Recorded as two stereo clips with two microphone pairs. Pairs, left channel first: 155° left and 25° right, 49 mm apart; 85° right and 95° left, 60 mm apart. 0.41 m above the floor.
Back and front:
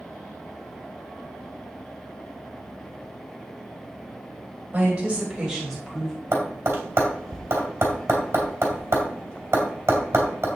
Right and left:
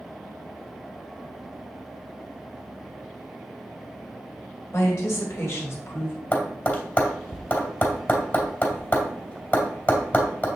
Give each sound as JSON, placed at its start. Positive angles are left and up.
{"t": 4.7, "sound": "a woman speaking", "azimuth_deg": -70, "distance_m": 2.0}
{"t": 6.3, "sound": "tapping", "azimuth_deg": -40, "distance_m": 2.5}